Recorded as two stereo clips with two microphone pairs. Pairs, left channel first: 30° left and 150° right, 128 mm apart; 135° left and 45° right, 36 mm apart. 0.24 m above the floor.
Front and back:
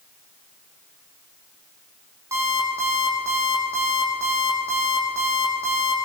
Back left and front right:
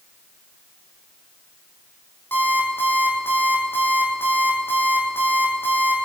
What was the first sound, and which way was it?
An alarm clock, 140° left.